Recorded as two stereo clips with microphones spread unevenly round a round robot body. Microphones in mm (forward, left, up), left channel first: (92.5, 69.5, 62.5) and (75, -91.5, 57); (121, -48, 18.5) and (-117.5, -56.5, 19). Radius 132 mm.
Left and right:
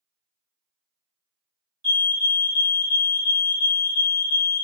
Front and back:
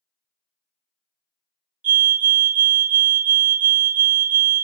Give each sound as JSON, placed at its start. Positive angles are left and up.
{"t": 1.8, "sound": "a fire alarm", "azimuth_deg": -140, "distance_m": 2.0}